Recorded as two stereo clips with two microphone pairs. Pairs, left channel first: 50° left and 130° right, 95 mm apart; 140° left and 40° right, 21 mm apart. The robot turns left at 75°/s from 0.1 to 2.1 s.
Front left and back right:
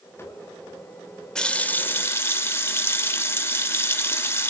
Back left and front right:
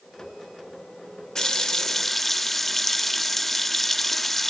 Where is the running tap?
120° left, 0.8 m; by 4.5 s 65° left, 0.8 m.